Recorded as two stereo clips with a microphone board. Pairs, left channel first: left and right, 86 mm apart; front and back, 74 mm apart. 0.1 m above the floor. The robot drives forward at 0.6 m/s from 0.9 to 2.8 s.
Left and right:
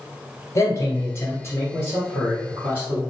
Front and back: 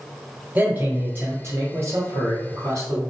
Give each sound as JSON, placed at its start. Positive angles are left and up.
{"t": 0.6, "sound": "a man speaking", "azimuth_deg": 125, "distance_m": 1.9}